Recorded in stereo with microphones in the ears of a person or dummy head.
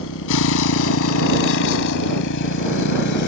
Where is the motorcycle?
75° left (ahead or behind); by 3.3 s 60° left (ahead or behind).